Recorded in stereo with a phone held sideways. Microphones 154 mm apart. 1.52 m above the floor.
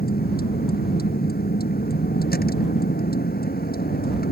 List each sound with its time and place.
0.0 s a vehicle: 85° left